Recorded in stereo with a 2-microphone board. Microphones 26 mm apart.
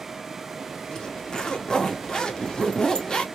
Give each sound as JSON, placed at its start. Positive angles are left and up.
{"t": 0.9, "sound": "a zipper", "side_deg": 25, "distance_m": 0.8}